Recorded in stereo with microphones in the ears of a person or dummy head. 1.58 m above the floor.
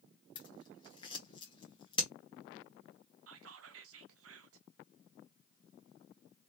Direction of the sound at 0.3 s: 25° left (ahead or behind).